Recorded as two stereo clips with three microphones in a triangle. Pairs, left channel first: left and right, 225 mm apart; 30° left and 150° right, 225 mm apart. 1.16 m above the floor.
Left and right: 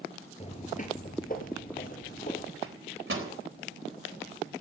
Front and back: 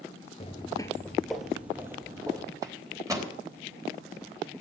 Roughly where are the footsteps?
Ahead left.